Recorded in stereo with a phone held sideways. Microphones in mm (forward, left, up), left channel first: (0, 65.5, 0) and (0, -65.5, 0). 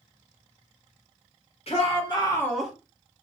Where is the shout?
55° left (ahead or behind), 1.4 m; by 2.7 s 10° right (ahead or behind), 0.9 m.